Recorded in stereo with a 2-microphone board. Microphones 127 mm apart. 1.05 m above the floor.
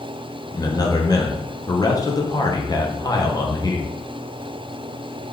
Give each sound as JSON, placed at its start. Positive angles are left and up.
{"t": 0.5, "sound": "a man speaking", "side_deg": 35, "distance_m": 0.6}